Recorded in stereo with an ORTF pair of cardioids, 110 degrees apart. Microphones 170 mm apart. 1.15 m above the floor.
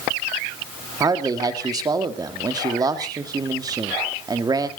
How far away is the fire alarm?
I don't hear a fire alarm.